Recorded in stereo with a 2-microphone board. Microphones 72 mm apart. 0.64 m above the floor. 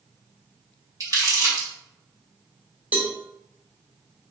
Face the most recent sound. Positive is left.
turn(degrees=-20)  # may be behind; listen again after turning